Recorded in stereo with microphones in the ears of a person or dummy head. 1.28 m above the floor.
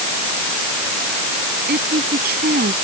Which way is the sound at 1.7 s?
60° right (ahead or behind).